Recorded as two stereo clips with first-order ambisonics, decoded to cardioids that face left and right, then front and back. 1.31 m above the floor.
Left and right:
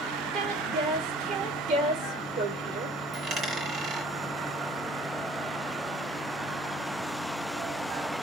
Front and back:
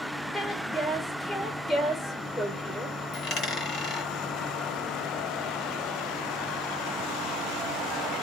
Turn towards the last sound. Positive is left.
turn(degrees=-30)